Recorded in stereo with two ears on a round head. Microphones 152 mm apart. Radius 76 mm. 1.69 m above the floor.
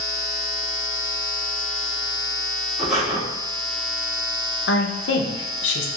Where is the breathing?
5° right (ahead or behind), 1.2 m.